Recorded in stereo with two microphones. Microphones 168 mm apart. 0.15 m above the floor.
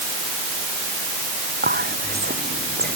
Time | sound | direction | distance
1.6 | whispering | 75° right (ahead or behind) | ?